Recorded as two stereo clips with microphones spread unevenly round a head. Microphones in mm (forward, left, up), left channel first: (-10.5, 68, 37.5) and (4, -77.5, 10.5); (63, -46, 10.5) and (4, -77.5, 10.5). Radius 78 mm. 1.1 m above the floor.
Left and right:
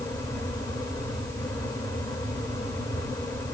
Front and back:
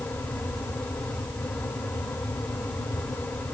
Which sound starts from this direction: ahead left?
A fan, at 0.0 s.